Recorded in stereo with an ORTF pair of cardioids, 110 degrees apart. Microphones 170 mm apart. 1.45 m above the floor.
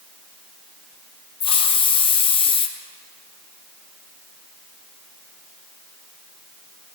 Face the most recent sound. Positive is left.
turn(degrees=30)